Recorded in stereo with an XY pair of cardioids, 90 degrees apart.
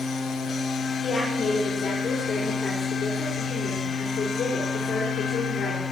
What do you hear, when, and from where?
0.0 s a machine running: 55° left, 2 m
1.0 s a woman speaking: 45° left, 5 m